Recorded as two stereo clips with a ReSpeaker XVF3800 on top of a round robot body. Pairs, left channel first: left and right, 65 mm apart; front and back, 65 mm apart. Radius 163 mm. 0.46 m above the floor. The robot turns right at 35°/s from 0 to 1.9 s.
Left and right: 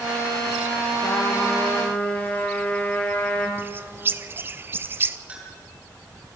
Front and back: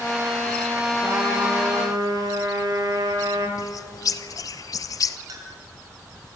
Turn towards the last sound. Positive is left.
turn(degrees=-160)